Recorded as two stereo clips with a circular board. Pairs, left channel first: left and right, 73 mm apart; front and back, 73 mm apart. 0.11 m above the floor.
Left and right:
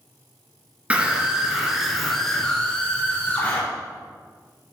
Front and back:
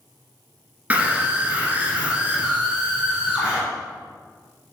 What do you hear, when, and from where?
0.9 s a scream: 140° right, 1.8 m; by 3.6 s 120° left, 1.9 m